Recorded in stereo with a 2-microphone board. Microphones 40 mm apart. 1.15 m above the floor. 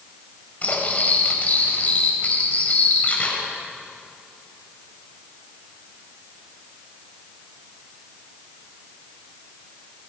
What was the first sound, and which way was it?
Cutlery clinking, 35° left (ahead or behind).